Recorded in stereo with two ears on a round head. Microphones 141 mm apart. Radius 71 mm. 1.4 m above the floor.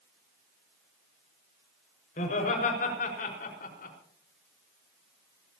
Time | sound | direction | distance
2.2 | laughter | 55° left (ahead or behind) | 5.5 m